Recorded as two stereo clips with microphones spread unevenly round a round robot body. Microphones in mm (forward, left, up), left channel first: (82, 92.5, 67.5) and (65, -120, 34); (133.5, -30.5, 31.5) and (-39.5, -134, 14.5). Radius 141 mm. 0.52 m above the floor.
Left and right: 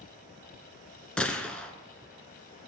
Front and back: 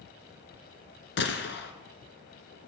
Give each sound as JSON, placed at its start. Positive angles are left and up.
{"t": 1.2, "sound": "a gunshot", "azimuth_deg": 0, "distance_m": 1.5}